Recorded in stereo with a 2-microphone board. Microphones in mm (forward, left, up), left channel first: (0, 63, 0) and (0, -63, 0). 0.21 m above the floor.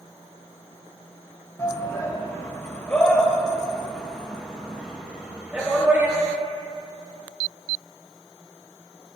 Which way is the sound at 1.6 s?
25° left (ahead or behind).